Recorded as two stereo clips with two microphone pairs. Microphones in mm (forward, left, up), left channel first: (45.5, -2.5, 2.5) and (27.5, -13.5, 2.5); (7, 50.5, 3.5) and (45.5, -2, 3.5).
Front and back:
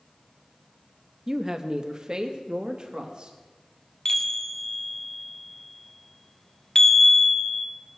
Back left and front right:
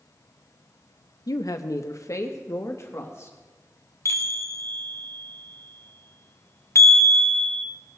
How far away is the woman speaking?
About 0.6 m.